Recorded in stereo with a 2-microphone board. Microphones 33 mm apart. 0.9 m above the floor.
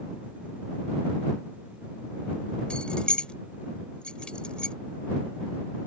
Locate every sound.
2.7 s keys jangling: 35° left (ahead or behind)